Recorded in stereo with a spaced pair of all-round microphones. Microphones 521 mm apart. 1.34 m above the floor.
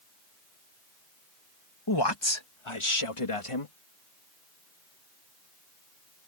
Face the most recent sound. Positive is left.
turn(degrees=85)